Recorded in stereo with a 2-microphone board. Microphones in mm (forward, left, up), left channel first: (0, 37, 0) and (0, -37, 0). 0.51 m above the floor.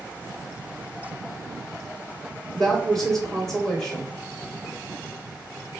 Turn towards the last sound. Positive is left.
turn(degrees=5)  # may be behind; listen again after turning